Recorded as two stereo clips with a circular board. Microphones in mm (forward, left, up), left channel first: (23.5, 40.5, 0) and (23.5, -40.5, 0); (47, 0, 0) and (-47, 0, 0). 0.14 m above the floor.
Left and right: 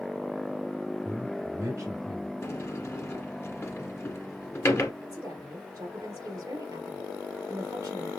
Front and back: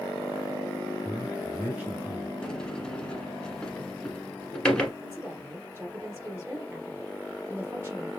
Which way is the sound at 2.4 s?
70° left.